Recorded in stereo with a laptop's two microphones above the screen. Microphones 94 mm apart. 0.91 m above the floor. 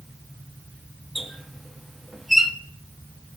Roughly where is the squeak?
Centre.